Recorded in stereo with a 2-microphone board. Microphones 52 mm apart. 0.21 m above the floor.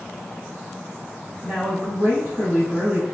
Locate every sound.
1.4 s a woman speaking: 30° right (ahead or behind), 1.3 m